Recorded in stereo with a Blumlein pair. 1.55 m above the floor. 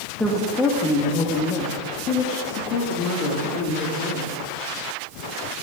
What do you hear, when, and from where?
0.2 s a woman speaking: 5° left, 1.9 m; by 4.4 s 45° left, 3.5 m